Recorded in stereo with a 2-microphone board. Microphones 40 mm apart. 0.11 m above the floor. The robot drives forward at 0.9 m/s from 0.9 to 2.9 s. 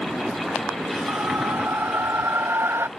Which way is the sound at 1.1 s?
70° right (ahead or behind).